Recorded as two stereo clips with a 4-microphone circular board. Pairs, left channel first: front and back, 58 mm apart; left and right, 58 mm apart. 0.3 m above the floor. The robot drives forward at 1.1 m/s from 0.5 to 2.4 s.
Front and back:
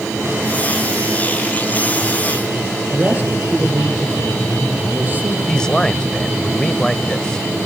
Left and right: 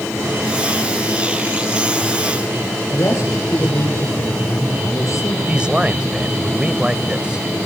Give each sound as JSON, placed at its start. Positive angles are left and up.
{"t": 2.9, "sound": "a man speaking", "azimuth_deg": 120, "distance_m": 10.0}
{"t": 5.5, "sound": "a man speaking", "azimuth_deg": -55, "distance_m": 1.1}